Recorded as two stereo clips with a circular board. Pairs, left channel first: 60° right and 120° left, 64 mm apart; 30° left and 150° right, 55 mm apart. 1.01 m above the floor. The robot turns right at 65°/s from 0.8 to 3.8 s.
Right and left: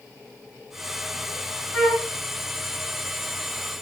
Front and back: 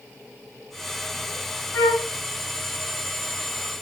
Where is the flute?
30° left, 3.5 m; by 2.1 s 50° left, 3.5 m.